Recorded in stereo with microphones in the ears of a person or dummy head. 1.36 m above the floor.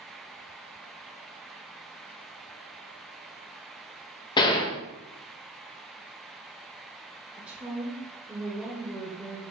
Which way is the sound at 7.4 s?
10° right (ahead or behind).